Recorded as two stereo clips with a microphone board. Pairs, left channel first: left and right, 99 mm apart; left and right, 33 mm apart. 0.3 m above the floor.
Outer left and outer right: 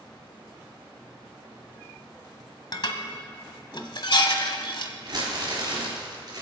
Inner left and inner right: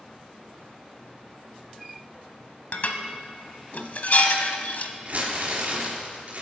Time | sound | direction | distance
2.7 | dishes clattering | 55° left (ahead or behind) | 1.0 m
5.0 | crumpling | 45° right (ahead or behind) | 3.5 m